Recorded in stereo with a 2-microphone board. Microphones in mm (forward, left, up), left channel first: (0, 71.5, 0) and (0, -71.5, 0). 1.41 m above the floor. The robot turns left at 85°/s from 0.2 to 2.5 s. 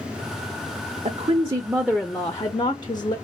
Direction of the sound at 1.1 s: 100° right.